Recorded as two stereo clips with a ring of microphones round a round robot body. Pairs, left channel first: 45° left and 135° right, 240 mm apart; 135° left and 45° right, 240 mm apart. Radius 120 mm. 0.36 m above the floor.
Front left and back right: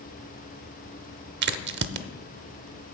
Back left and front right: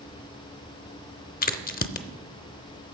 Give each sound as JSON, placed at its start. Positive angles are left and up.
{"t": 1.4, "sound": "a crack", "azimuth_deg": -175, "distance_m": 0.6}